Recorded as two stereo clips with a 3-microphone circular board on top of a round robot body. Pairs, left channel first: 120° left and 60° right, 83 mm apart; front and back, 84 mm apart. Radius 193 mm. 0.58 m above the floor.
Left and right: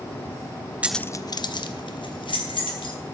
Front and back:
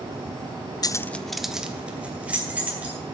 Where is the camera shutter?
No camera shutter in this recording.